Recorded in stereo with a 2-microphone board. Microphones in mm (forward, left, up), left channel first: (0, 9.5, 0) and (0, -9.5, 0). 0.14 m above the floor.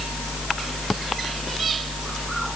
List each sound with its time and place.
Only background noise.